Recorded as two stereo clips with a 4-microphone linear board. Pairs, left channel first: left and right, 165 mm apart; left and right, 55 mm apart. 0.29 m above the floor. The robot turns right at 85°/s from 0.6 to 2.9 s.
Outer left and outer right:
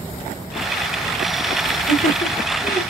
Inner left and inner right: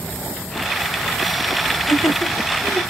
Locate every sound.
1.7 s laughter: 30° left (ahead or behind), 4.5 m; by 2.8 s 50° left (ahead or behind), 4.5 m